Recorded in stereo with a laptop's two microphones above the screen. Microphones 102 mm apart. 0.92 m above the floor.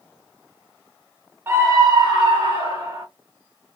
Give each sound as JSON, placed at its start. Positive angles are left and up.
{"t": 1.5, "sound": "a scream", "side_deg": -25, "distance_m": 0.9}